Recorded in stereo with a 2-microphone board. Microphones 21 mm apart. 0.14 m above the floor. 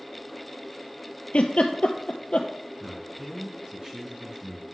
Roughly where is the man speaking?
Right.